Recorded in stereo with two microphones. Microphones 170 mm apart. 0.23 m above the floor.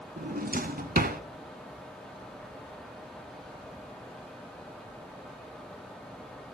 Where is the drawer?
65° right (ahead or behind), 0.7 m.